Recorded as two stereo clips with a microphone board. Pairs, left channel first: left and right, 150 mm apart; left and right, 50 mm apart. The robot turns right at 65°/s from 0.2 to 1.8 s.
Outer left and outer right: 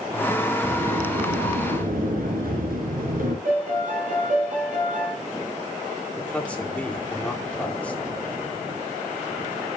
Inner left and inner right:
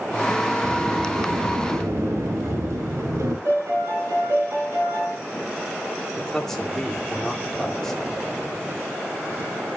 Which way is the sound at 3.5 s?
60° right (ahead or behind).